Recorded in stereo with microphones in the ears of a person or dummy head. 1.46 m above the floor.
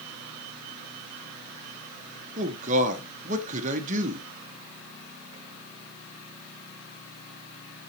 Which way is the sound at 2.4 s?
35° right (ahead or behind).